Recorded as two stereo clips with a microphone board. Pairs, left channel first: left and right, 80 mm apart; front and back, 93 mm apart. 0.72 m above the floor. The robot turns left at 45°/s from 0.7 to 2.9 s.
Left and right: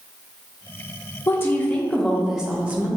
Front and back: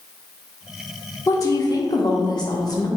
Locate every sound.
1.3 s a woman speaking: 40° left, 0.6 m; by 2.9 s 30° right, 0.6 m